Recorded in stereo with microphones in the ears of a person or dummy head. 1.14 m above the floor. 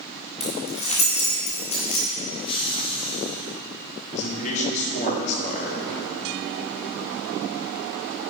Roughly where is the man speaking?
Left.